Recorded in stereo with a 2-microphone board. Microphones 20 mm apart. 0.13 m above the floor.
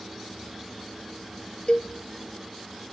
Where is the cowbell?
40° left (ahead or behind), 0.6 m.